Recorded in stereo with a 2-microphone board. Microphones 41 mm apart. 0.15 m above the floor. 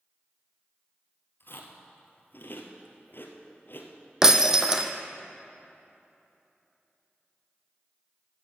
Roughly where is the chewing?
Left.